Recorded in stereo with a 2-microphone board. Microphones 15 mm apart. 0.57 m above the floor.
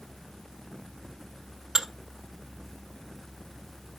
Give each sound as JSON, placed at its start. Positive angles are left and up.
{"t": 1.8, "sound": "dishes clattering", "side_deg": -45, "distance_m": 1.3}